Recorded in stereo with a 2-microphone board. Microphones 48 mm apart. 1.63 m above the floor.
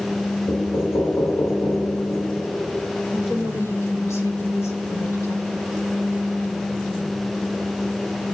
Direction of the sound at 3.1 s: 65° left (ahead or behind).